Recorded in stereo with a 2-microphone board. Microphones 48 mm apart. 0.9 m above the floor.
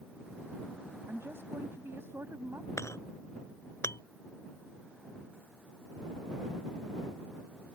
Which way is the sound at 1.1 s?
60° right (ahead or behind).